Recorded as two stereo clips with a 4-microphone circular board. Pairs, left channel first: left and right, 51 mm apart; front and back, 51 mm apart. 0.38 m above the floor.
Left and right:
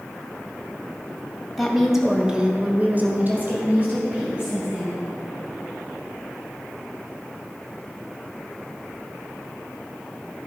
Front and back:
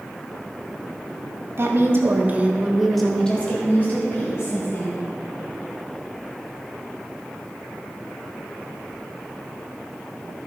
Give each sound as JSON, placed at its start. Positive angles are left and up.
{"t": 1.6, "sound": "a woman speaking", "azimuth_deg": 180, "distance_m": 2.0}